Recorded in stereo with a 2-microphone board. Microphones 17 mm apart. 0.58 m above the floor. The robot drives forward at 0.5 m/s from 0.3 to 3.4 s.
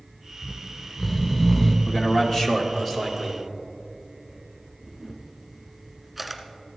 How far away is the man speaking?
About 1.4 m.